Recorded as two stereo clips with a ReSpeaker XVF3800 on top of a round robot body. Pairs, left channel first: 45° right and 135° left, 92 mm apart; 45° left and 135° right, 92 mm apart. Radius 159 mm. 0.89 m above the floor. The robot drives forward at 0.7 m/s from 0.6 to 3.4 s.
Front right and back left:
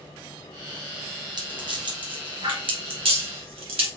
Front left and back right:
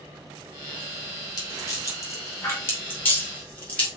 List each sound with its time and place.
1.4 s a rattle: 95° left, 3 m; by 3.9 s 120° left, 3.5 m